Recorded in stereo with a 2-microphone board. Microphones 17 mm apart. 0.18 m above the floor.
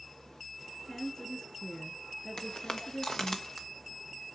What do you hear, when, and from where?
0.9 s a woman speaking: 45° left (ahead or behind), 2.5 m
2.4 s footsteps: 65° left (ahead or behind), 1.7 m; by 3.7 s 25° left (ahead or behind), 1.5 m